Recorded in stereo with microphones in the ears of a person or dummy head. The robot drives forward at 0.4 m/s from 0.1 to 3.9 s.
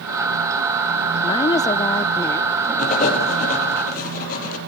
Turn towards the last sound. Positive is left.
turn(degrees=45)  # may be behind; listen again after turning